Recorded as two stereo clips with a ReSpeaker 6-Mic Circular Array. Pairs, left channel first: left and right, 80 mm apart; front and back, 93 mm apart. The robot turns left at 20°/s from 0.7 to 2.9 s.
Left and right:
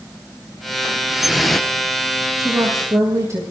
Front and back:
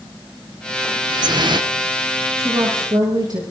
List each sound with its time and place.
1.1 s dripping: 175° right, 1.2 m; by 1.7 s 175° left, 1.2 m
2.4 s a woman speaking: 130° right, 6.5 m; by 3.4 s 140° right, 6.5 m